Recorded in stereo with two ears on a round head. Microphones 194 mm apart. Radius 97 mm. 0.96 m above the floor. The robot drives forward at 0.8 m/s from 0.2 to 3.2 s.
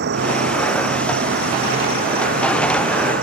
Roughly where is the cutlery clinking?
No cutlery clinking in this recording.